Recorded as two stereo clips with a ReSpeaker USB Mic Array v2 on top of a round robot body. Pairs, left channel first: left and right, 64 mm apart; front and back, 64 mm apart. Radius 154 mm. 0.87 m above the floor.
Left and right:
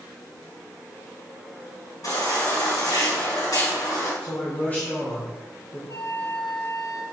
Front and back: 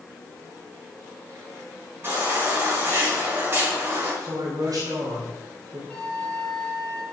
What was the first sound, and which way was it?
A baby crying, 120° left.